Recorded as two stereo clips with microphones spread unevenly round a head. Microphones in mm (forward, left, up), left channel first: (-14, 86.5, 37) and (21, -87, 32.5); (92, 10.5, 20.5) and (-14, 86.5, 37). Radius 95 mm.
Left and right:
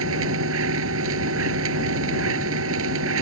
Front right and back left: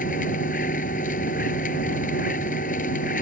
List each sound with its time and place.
0.0 s a machine running: 80° right